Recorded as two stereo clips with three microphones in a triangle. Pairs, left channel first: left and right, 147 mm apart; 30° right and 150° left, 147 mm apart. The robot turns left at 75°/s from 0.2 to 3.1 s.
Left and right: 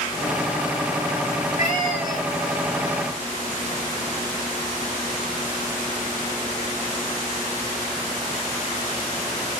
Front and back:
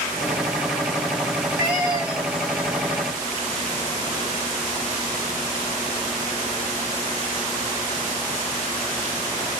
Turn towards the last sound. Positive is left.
turn(degrees=105)